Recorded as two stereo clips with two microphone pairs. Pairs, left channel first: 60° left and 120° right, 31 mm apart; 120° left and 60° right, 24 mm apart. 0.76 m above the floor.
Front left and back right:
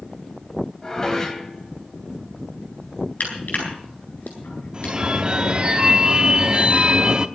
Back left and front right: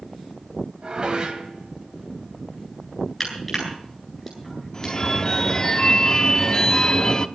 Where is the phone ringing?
175° left, 0.9 m.